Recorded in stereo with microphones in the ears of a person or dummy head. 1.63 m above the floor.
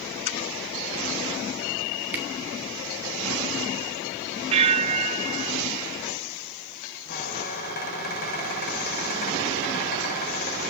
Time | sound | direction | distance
2.1 | a camera shutter | 10° right (ahead or behind) | 1.5 m
4.5 | a bell | 35° right (ahead or behind) | 0.7 m
7.1 | a squeak | 50° left (ahead or behind) | 5.5 m